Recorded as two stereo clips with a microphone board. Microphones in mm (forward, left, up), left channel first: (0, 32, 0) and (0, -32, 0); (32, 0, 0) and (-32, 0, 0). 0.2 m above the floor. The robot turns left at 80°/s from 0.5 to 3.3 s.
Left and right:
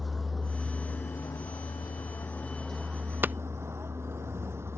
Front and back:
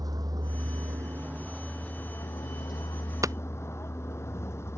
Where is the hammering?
150° right; by 3.3 s 155° right.